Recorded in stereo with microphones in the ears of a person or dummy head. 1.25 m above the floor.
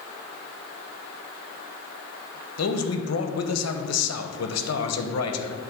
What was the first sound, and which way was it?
A man speaking, 70° left (ahead or behind).